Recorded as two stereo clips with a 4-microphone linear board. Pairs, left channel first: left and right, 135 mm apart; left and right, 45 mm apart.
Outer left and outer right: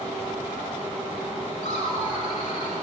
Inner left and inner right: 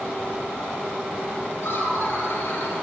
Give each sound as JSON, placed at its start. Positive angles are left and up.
{"t": 1.6, "sound": "laughter", "side_deg": 50, "distance_m": 5.0}